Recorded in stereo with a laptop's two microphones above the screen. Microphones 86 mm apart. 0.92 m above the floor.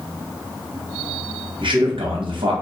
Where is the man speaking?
70° right (ahead or behind), 0.8 m.